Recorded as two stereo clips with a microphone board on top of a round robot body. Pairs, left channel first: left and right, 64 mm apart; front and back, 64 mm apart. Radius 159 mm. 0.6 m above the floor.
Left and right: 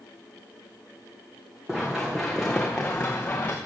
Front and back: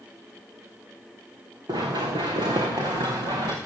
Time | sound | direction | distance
1.7 | running footsteps | 175° right | 3 m